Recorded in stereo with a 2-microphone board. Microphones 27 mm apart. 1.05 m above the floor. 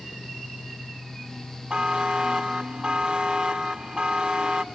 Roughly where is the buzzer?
Right.